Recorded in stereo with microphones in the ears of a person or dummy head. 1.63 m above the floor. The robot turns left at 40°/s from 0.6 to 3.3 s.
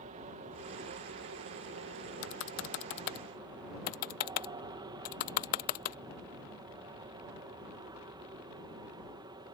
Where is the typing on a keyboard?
70° left (ahead or behind); by 6.0 s 50° left (ahead or behind).